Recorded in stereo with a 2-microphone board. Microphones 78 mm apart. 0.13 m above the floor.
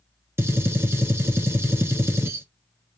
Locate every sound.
0.4 s a gunshot: 35° right (ahead or behind), 1.0 m